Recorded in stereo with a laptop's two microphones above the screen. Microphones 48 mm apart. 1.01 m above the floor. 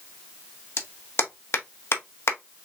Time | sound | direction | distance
0.8 | a clap | 60° left (ahead or behind) | 1.4 m